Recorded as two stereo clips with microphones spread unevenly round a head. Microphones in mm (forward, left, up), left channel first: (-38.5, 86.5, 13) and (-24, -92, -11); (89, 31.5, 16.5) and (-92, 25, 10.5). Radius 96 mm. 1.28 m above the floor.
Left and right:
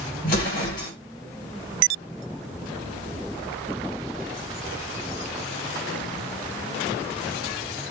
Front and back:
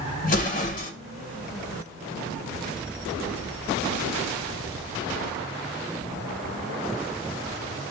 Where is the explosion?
45° left, 1.0 m.